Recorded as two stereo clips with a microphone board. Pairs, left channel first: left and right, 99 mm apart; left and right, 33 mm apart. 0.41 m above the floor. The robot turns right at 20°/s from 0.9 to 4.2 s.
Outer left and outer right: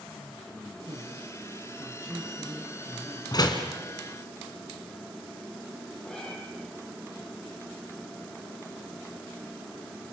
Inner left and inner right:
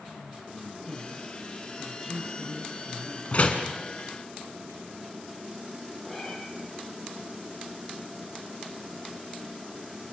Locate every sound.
0.9 s a man speaking: 50° right, 4.5 m; by 3.2 s straight ahead, 4.5 m
3.3 s a door slam: 40° left (ahead or behind), 3 m; by 3.7 s 50° left (ahead or behind), 3 m
6.1 s a cat meowing: 10° left (ahead or behind), 4.5 m